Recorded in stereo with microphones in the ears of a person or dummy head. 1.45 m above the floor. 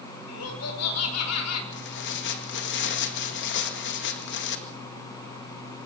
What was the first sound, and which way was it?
Laughter, 85° left.